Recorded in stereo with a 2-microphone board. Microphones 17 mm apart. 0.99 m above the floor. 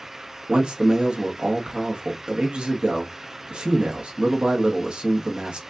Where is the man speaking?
65° right (ahead or behind), 1.6 m.